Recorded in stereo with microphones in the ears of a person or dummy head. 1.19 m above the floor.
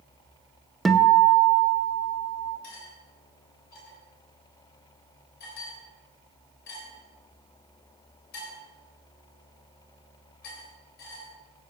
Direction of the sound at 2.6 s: 50° left (ahead or behind).